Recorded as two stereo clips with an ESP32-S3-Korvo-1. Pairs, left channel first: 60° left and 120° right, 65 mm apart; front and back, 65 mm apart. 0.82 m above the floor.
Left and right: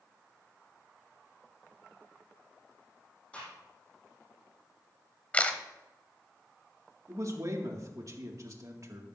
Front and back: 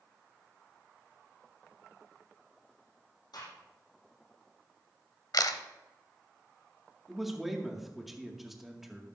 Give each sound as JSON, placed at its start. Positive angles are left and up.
{"t": 3.3, "sound": "a gunshot", "azimuth_deg": -10, "distance_m": 6.0}
{"t": 5.3, "sound": "a camera shutter", "azimuth_deg": -10, "distance_m": 1.0}
{"t": 7.1, "sound": "a man speaking", "azimuth_deg": -90, "distance_m": 2.0}